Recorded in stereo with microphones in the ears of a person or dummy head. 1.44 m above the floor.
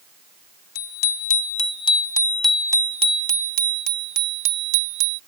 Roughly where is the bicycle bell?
Left.